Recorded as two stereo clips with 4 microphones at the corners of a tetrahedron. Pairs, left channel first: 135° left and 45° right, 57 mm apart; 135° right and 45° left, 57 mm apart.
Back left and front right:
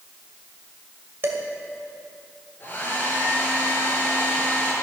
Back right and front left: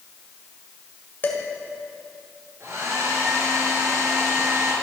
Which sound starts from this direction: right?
Dishes clattering, at 1.2 s.